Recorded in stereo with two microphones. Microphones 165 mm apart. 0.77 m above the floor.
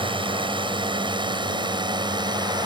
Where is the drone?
30° right (ahead or behind); by 2.7 s 25° right (ahead or behind).